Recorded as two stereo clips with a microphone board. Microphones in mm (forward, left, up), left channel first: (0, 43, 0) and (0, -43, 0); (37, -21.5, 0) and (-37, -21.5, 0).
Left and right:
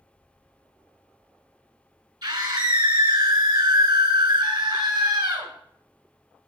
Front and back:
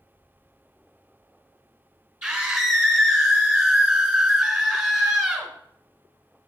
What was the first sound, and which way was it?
A scream, 110° right.